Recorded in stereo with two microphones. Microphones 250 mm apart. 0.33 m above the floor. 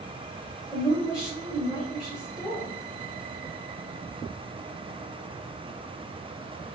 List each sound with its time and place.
0.7 s a woman speaking: centre (ahead or behind), 1.2 m